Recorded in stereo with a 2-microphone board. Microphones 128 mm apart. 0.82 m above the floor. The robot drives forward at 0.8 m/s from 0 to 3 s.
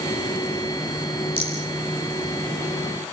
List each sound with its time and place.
1.4 s a rattle: 45° left (ahead or behind), 8.5 m; by 1.6 s 50° left (ahead or behind), 8.5 m